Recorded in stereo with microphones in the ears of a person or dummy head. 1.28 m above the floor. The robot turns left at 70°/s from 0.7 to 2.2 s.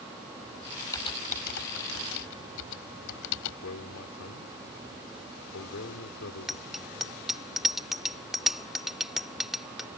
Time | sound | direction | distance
0.9 | typing on a keyboard | 20° left (ahead or behind) | ?
3.6 | a man speaking | 90° left | ?
6.5 | a bicycle bell | centre (ahead or behind) | ?